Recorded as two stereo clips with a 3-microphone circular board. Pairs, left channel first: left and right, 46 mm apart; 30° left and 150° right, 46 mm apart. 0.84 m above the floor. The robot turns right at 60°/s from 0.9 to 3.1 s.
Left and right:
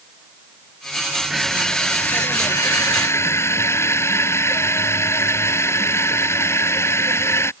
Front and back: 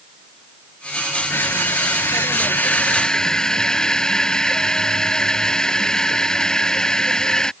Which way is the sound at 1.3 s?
Straight ahead.